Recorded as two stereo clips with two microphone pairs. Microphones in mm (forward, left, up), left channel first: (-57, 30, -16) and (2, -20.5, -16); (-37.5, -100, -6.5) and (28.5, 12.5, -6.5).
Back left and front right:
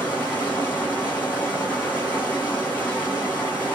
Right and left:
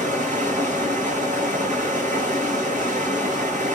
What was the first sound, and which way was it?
Running water, 75° left.